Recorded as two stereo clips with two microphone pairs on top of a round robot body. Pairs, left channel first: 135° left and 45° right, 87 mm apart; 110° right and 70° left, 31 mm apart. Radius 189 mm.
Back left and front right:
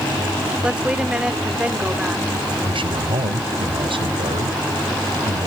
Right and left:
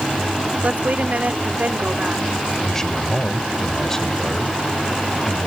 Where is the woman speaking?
35° left.